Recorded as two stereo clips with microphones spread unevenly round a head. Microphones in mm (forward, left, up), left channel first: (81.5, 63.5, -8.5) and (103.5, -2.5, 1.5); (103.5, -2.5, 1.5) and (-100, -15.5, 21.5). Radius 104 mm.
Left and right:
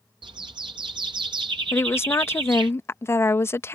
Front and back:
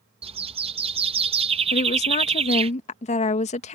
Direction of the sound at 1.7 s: 60° left.